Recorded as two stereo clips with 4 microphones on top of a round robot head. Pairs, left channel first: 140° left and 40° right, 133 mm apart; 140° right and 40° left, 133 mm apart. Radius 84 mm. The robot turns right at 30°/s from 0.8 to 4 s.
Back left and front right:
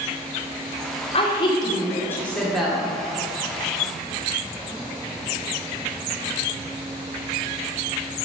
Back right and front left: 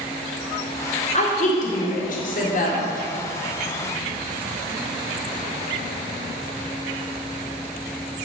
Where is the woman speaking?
175° right, 2 m; by 2.9 s 120° right, 2 m.